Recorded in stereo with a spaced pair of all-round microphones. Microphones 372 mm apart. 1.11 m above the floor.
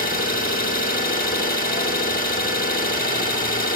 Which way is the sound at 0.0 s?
20° left (ahead or behind).